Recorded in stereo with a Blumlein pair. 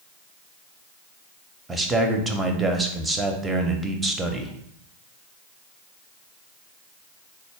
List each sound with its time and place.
1.7 s a man speaking: 10° right, 0.7 m